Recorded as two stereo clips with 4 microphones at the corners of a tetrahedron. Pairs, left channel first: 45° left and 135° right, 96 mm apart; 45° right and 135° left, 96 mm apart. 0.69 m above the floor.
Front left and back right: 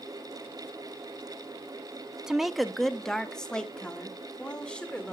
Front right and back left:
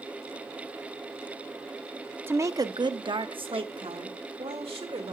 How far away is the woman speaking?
About 0.5 m.